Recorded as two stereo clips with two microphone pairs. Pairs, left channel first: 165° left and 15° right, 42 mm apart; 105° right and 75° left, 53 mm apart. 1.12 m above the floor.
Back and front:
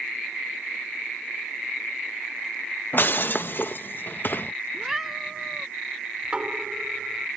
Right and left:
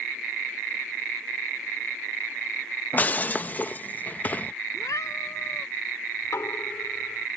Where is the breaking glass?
160° right.